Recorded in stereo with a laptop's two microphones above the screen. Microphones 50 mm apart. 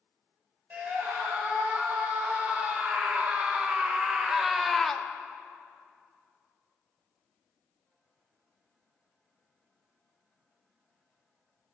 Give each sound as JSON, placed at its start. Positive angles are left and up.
{"t": 0.7, "sound": "a scream", "side_deg": -30, "distance_m": 3.5}